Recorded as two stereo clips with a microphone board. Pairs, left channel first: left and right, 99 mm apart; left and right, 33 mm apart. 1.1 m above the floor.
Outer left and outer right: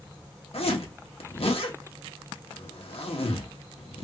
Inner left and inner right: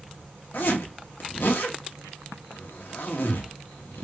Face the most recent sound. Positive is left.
turn(degrees=75)  # may be behind; listen again after turning